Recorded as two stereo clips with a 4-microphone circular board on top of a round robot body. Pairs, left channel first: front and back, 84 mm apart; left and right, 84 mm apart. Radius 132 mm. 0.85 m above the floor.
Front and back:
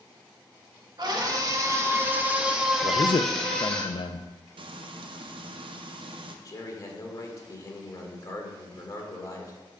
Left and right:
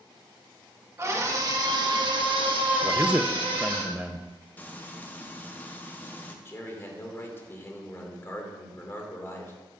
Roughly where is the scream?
Behind right.